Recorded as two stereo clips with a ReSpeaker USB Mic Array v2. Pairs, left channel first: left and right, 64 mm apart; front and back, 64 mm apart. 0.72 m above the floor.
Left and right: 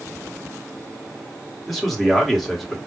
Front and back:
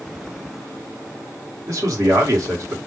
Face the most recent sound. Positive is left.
turn(degrees=175)